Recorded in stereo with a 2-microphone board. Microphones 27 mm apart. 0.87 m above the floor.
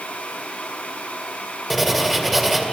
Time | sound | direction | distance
1.7 | writing | centre (ahead or behind) | 2 m